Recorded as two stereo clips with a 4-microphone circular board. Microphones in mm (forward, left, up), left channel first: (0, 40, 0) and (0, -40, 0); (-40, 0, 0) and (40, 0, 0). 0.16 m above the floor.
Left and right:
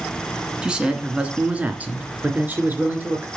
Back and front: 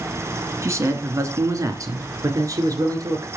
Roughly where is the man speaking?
Ahead.